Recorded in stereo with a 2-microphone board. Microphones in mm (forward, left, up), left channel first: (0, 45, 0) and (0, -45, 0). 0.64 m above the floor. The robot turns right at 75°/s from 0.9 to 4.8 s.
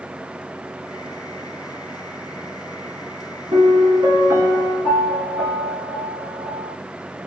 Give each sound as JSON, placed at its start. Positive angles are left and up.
{"t": 3.5, "sound": "a piano", "azimuth_deg": -105, "distance_m": 1.2}